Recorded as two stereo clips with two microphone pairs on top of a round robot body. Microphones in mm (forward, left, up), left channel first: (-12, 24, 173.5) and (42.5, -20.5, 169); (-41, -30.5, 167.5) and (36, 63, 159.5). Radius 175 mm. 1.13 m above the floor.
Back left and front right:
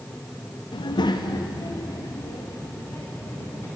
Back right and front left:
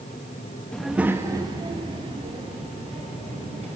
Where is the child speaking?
150° left, 1.0 m; by 3.7 s 85° left, 4 m.